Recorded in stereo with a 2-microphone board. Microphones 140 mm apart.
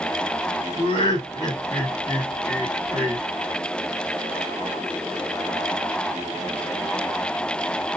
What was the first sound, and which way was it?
Laughter, 40° left (ahead or behind).